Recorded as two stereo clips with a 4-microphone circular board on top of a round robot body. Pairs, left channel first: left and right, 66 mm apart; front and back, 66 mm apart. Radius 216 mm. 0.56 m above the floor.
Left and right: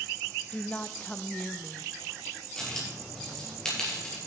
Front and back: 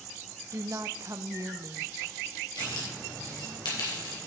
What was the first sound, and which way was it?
A woman speaking, 155° left.